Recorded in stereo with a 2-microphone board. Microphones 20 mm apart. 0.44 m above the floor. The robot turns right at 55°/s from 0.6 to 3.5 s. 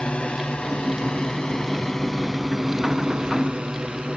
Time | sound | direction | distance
0.0 | a drone | 65° left (ahead or behind) | ?